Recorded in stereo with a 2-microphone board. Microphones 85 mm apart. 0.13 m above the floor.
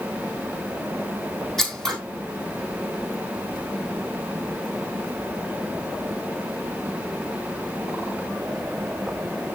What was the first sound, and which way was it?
Scissors, 5° left (ahead or behind).